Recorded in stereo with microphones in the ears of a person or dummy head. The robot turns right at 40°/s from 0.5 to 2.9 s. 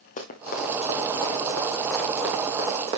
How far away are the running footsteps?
About 3 m.